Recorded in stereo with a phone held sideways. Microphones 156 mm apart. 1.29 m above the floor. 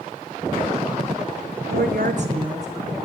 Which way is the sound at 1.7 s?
80° right.